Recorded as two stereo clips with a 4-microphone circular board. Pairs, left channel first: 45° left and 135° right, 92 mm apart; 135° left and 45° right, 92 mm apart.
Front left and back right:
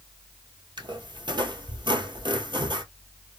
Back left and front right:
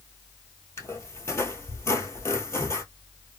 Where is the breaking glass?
I don't hear breaking glass.